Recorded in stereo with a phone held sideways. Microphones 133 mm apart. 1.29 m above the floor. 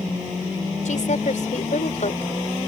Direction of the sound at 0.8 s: 70° left (ahead or behind).